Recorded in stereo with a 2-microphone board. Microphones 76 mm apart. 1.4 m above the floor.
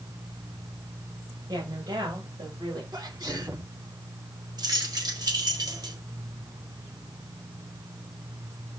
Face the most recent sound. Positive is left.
turn(degrees=-60)  # may be behind; listen again after turning